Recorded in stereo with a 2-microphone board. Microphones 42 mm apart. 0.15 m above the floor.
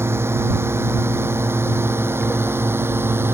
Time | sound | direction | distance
0.0 | a drone | 75° right (ahead or behind) | ?